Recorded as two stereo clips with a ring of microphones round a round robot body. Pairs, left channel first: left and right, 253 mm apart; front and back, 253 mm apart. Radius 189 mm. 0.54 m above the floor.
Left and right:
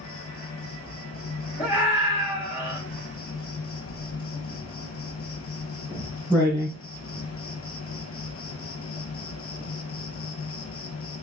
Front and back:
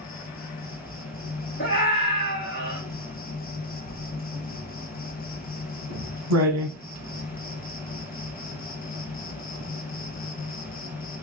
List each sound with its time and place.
0.0 s an insect: 55° left, 0.8 m
1.6 s a scream: 25° left, 1.5 m
3.9 s writing: 175° left, 1.3 m